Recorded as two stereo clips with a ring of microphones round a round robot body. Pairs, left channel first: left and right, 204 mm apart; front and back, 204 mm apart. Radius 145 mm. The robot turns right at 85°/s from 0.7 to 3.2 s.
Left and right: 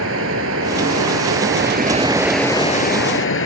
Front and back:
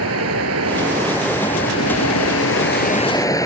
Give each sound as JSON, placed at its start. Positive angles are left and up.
{"t": 0.0, "sound": "running water", "azimuth_deg": -140}